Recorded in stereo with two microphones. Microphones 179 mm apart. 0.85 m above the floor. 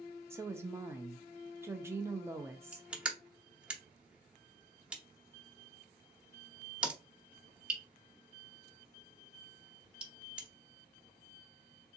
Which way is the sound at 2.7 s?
5° right (ahead or behind).